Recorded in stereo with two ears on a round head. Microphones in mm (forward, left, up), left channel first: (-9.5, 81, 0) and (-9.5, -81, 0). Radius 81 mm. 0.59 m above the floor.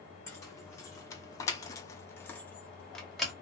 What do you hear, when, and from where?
0.3 s keys jangling: 15° left (ahead or behind), 1.1 m; by 3.3 s centre (ahead or behind), 0.9 m